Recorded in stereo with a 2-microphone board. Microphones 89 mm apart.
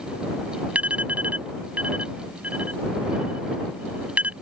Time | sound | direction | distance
0.8 | an alarm | 15° right (ahead or behind) | ?